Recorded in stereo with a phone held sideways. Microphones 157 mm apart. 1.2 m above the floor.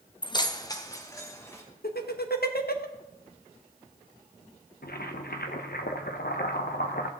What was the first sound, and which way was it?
Keys jangling, 30° left (ahead or behind).